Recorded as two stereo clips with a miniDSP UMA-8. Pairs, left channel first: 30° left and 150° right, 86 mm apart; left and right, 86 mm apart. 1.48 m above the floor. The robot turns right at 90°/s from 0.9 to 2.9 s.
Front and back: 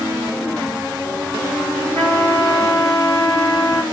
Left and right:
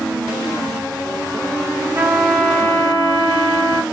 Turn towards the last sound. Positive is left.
turn(degrees=50)